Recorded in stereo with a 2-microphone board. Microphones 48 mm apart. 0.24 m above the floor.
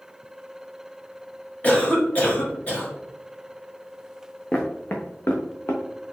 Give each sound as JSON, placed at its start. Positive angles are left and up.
{"t": 1.6, "sound": "a cough", "side_deg": 30, "distance_m": 1.7}
{"t": 4.5, "sound": "footsteps", "side_deg": 25, "distance_m": 1.2}